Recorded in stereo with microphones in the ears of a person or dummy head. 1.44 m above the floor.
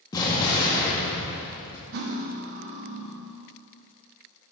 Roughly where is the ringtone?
I don't hear a ringtone.